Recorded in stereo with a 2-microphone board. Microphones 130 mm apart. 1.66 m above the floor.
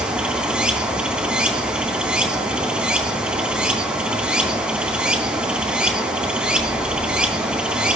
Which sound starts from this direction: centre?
Running water, at 0.0 s.